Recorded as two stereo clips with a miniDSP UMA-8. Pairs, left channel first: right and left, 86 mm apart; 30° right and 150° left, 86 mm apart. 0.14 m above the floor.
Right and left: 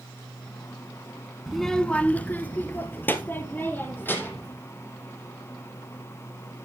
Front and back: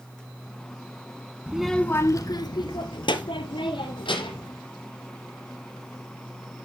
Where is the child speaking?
170° left, 0.9 m; by 4.5 s 25° right, 4.5 m.